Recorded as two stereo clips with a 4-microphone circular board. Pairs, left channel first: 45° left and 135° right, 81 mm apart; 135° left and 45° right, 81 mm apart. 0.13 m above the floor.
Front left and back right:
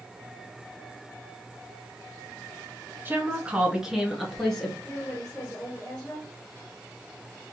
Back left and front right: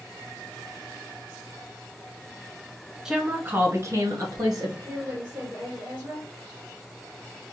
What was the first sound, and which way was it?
A woman speaking, 120° right.